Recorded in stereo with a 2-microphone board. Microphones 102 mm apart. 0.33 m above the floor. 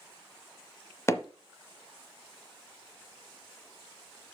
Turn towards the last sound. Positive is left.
turn(degrees=25)  # may be behind; listen again after turning